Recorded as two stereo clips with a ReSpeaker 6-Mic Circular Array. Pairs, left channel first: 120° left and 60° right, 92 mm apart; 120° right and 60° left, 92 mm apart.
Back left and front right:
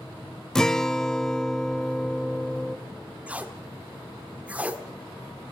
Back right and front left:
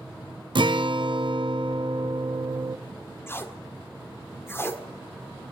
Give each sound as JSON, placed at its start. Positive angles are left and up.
{"t": 0.6, "sound": "a guitar", "azimuth_deg": 35, "distance_m": 0.5}
{"t": 3.3, "sound": "tape being pulled", "azimuth_deg": -110, "distance_m": 1.5}